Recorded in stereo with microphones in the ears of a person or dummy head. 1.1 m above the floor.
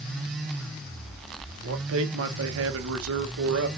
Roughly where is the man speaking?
Right.